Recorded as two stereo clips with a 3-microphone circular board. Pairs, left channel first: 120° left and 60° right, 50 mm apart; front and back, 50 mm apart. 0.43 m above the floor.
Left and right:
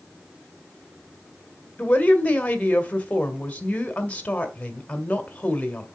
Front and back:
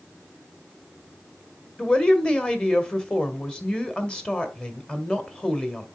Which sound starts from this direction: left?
A woman speaking, at 1.8 s.